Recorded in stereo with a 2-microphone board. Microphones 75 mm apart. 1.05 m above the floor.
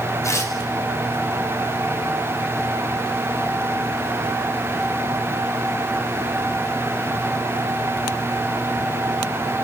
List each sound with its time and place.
0.2 s tearing paper: 40° left (ahead or behind), 5 m